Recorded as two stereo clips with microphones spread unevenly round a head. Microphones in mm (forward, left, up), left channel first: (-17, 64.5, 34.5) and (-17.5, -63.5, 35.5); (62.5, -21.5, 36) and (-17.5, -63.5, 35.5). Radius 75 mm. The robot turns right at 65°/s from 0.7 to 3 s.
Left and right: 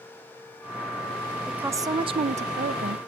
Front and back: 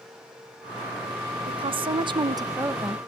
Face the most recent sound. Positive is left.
turn(degrees=-75)